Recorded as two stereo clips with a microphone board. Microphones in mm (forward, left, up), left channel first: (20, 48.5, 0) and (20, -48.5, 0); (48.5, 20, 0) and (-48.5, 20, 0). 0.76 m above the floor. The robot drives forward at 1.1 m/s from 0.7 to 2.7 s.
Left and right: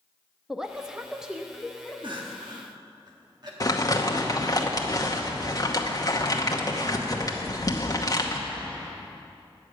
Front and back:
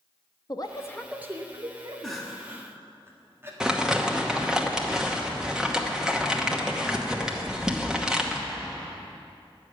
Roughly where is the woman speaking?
Ahead.